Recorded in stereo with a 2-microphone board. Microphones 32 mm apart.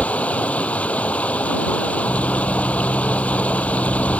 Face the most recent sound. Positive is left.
turn(degrees=45)  # may be behind; listen again after turning